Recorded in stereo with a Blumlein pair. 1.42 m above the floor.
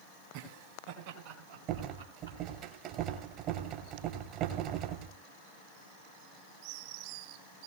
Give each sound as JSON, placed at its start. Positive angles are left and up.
{"t": 0.3, "sound": "laughter", "azimuth_deg": -50, "distance_m": 4.5}
{"t": 1.7, "sound": "a rattle", "azimuth_deg": -40, "distance_m": 3.0}